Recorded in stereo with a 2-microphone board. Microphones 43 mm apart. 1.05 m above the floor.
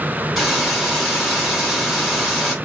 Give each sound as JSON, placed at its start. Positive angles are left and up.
{"t": 0.4, "sound": "a hiss", "side_deg": 0, "distance_m": 2.5}